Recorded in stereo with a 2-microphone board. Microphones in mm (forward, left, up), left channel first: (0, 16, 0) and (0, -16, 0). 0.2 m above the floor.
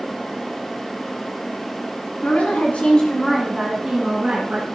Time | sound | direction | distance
2.2 | a woman speaking | 55° left (ahead or behind) | 1.7 m